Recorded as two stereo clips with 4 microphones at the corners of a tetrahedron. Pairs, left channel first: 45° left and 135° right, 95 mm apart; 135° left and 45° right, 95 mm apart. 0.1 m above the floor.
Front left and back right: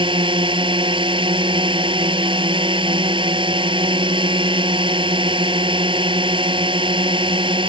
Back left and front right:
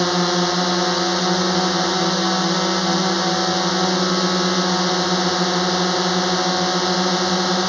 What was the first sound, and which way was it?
A drone, 135° right.